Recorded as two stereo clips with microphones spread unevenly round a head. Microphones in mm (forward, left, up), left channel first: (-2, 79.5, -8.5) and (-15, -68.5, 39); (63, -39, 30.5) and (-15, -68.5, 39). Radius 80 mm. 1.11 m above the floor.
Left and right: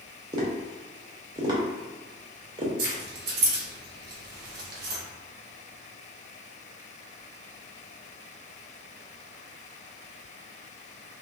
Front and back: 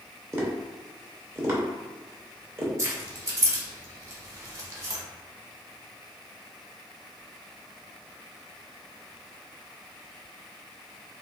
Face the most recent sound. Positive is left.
turn(degrees=-110)